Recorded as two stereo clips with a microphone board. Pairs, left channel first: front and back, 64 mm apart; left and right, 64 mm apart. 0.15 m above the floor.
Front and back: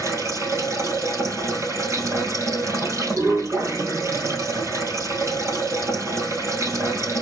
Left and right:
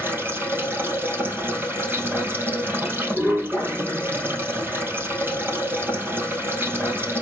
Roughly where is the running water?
Behind right.